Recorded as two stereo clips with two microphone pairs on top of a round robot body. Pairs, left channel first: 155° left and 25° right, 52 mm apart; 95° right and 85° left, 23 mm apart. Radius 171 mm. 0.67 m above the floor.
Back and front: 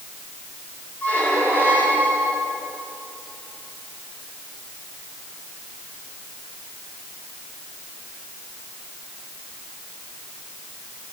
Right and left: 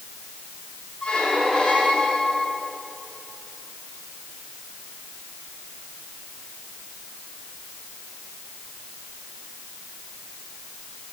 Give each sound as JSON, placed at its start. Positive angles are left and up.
{"t": 1.0, "sound": "a squeak", "azimuth_deg": -145, "distance_m": 4.0}